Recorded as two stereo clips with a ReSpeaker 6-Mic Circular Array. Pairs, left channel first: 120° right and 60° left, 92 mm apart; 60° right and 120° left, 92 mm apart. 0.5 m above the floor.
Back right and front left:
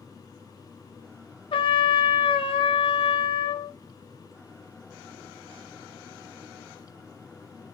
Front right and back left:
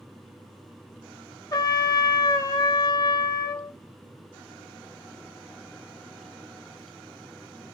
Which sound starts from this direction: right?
A trumpet, at 1.5 s.